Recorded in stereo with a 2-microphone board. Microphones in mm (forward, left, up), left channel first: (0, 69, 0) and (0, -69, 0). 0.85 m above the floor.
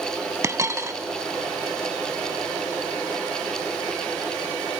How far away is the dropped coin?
About 0.8 m.